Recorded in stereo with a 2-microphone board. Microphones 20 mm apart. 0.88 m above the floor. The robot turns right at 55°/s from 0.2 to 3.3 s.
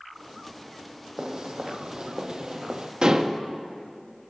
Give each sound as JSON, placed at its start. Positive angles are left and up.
{"t": 1.2, "sound": "footsteps", "side_deg": -45, "distance_m": 1.6}
{"t": 3.0, "sound": "dishes clattering", "side_deg": -50, "distance_m": 0.8}